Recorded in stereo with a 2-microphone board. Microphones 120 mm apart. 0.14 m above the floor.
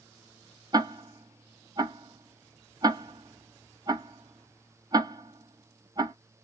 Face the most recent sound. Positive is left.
turn(degrees=-35)  # may be behind; listen again after turning